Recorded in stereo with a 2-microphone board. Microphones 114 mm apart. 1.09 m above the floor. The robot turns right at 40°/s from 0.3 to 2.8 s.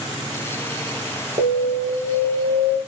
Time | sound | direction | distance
1.4 | an alarm | 110° right | 3.5 m